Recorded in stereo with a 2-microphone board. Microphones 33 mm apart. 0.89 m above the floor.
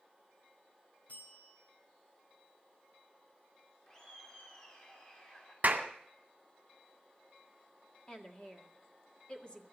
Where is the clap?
50° right (ahead or behind), 1.9 m.